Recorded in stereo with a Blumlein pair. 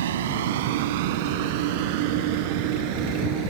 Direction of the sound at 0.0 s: 60° right.